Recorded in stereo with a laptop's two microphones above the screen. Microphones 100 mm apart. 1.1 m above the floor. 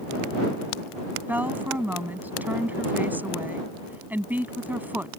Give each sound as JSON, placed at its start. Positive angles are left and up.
{"t": 1.3, "sound": "a woman speaking", "side_deg": -15}